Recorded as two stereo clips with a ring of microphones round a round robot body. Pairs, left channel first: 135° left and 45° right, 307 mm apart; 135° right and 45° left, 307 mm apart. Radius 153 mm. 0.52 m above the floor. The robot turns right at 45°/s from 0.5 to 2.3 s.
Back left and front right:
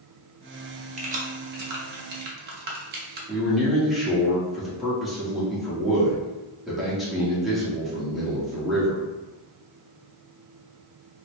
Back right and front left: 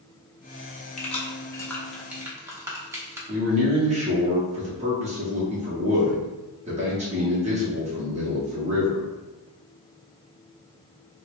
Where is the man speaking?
45° left, 0.9 m.